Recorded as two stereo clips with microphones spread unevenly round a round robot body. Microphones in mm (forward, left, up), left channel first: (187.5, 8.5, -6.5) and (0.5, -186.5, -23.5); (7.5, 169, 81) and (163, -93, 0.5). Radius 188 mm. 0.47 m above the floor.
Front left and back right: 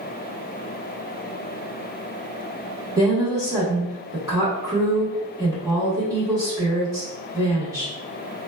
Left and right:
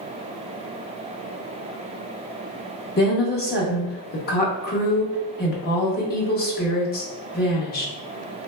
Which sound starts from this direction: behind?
A woman speaking, at 3.0 s.